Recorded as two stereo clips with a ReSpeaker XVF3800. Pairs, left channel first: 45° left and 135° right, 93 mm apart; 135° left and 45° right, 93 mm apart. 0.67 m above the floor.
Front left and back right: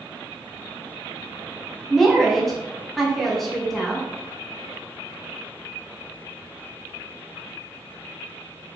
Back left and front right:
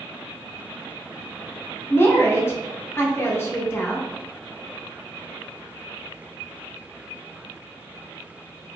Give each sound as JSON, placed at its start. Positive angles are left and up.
{"t": 1.9, "sound": "a woman speaking", "azimuth_deg": 130, "distance_m": 0.5}